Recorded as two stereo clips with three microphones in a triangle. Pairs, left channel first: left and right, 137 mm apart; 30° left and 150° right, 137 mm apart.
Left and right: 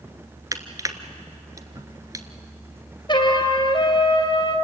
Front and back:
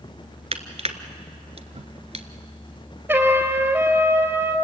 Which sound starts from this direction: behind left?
A trumpet, at 3.1 s.